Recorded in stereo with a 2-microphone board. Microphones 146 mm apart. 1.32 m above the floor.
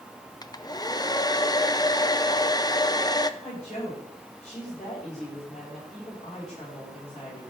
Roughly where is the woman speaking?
Left.